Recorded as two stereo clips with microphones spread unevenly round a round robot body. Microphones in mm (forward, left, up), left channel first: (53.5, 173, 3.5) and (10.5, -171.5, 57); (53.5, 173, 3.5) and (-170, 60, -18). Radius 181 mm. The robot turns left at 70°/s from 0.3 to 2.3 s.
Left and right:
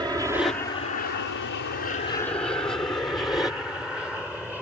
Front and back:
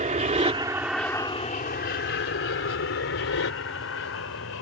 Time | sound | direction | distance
0.0 | an aircraft | straight behind | ?